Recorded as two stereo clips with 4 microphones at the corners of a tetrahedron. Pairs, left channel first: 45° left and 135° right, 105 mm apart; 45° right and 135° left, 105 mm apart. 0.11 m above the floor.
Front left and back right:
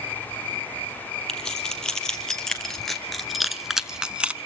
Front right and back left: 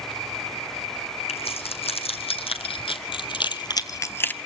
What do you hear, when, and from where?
1.3 s keys jangling: 40° right, 3 m; by 4.3 s 85° right, 0.8 m